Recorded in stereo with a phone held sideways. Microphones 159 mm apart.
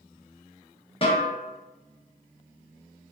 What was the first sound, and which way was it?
A snare drum, 35° left (ahead or behind).